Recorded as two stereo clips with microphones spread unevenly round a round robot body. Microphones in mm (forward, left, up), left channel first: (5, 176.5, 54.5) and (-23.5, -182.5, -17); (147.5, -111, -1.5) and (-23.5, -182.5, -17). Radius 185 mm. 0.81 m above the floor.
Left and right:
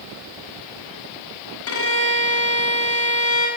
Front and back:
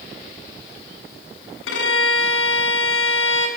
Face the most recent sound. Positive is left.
turn(degrees=30)